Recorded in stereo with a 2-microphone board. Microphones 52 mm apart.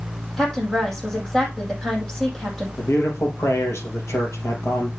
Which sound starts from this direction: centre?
A woman speaking, at 0.4 s.